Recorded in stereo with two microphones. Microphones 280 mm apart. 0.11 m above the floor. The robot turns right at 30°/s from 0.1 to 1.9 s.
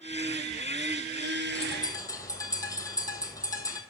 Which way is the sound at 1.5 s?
25° left (ahead or behind).